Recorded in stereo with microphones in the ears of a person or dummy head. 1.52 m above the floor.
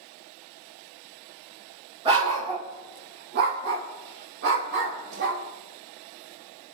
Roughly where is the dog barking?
Right.